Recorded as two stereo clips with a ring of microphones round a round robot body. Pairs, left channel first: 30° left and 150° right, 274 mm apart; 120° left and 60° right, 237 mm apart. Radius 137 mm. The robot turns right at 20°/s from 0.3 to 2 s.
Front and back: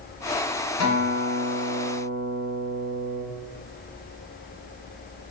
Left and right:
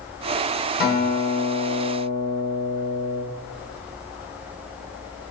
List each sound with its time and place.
0.8 s a guitar: 70° left, 1.3 m; by 3.2 s 90° left, 1.3 m